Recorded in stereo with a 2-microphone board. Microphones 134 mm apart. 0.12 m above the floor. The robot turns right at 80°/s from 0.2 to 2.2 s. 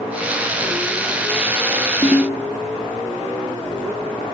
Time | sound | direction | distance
2.0 | a ringtone | 30° left (ahead or behind) | 0.6 m